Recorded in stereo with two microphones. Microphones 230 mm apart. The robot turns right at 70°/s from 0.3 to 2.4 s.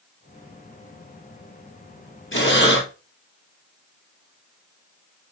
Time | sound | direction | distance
2.3 | breathing | 60° left (ahead or behind) | 2 m